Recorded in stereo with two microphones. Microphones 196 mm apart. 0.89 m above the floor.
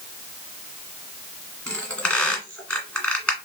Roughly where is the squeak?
Centre.